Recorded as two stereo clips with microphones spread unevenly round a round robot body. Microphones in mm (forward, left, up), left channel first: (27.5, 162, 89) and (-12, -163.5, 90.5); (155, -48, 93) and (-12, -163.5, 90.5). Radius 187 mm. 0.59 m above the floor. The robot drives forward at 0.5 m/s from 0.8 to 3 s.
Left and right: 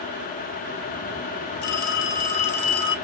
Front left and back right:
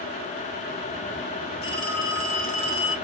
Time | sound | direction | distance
1.6 | a phone ringing | 90° left | 2 m